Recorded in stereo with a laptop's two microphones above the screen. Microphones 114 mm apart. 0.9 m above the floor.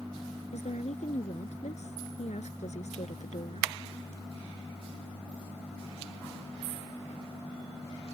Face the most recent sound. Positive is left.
turn(degrees=85)